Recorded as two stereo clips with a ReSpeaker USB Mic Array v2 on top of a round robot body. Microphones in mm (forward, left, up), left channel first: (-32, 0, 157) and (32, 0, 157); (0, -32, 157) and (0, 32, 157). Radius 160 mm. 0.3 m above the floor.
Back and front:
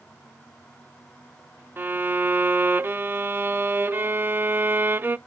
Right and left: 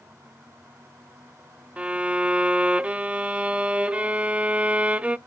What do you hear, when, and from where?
1.8 s a violin: 35° left, 0.6 m